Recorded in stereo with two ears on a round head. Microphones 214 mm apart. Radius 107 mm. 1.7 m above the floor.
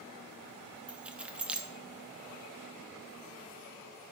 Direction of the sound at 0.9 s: 5° right (ahead or behind).